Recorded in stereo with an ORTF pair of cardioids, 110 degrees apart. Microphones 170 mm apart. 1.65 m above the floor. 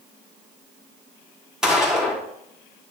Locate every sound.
1.6 s a gunshot: 5° right, 4.5 m